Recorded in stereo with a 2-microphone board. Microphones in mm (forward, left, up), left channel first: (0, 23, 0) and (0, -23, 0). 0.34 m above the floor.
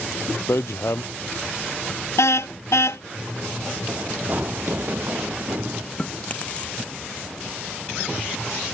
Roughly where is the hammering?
Left.